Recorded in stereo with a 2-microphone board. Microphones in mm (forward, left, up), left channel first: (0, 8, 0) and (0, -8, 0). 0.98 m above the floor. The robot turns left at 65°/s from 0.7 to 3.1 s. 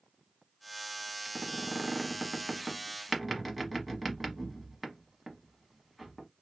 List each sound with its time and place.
1.2 s a squeak: 25° right (ahead or behind), 0.9 m; by 6.3 s centre (ahead or behind), 0.9 m